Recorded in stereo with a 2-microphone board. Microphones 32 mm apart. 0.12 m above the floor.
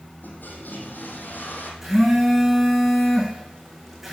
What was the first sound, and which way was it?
A toilet flushing, 75° left (ahead or behind).